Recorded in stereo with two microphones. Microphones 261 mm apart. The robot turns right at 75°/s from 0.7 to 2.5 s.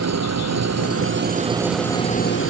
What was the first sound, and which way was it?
An engine running, 80° right.